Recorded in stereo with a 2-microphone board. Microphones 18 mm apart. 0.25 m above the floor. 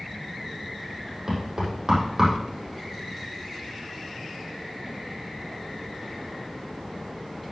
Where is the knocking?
30° right (ahead or behind), 7 m.